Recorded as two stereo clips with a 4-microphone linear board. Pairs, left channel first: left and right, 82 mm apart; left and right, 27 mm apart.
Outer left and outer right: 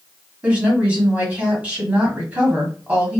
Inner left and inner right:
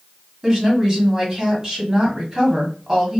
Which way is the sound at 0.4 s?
20° right (ahead or behind).